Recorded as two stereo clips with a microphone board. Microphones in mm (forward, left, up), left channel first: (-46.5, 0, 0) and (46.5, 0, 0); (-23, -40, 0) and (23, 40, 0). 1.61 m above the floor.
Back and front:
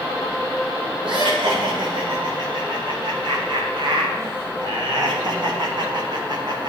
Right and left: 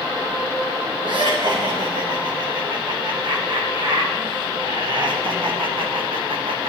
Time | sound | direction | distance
1.0 | laughter | 25° left | 5.5 m